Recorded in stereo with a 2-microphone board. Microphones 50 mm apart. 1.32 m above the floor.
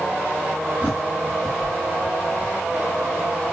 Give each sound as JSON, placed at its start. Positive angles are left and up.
{"t": 0.8, "sound": "a bird", "side_deg": -25, "distance_m": 5.0}